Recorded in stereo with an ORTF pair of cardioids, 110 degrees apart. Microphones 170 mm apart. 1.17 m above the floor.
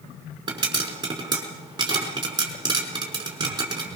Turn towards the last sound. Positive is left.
turn(degrees=-25)